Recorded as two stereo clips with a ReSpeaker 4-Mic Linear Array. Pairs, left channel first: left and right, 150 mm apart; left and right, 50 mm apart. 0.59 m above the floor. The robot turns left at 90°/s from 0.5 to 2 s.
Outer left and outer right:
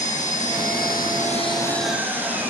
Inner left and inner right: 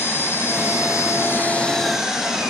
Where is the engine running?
125° left, 6 m; by 2.5 s 10° right, 6 m.